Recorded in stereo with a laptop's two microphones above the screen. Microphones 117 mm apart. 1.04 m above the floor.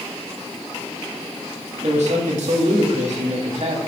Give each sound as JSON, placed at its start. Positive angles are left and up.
{"t": 1.8, "sound": "a man speaking", "side_deg": -75, "distance_m": 2.5}